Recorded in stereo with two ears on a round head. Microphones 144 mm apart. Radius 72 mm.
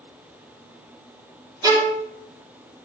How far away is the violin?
About 1.9 m.